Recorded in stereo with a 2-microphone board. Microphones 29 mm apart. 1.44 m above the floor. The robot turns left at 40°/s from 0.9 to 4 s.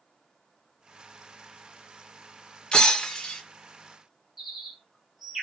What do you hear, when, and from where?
2.7 s breaking glass: 30° left (ahead or behind), 0.7 m; by 3.4 s 15° left (ahead or behind), 0.7 m
4.4 s a bird: 15° right (ahead or behind), 0.9 m